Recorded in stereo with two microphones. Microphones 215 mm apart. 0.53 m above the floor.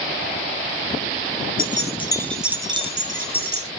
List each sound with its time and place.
1.6 s keys jangling: 40° left (ahead or behind), 0.6 m; by 3.7 s 50° right (ahead or behind), 0.9 m